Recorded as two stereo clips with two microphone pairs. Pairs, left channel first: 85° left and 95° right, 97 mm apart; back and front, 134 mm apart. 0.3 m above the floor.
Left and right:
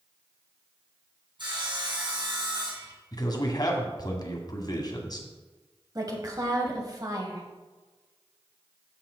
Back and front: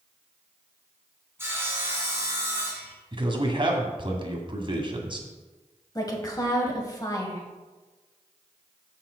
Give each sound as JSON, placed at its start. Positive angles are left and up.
{"t": 1.4, "sound": "sawing", "azimuth_deg": -70, "distance_m": 2.5}
{"t": 3.1, "sound": "a man speaking", "azimuth_deg": 45, "distance_m": 1.8}
{"t": 6.0, "sound": "a woman speaking", "azimuth_deg": -130, "distance_m": 2.0}